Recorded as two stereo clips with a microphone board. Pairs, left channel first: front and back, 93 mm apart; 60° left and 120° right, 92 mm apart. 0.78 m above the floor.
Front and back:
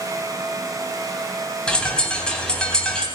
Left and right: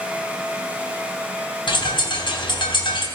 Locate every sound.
1.7 s a bird: 80° left, 3 m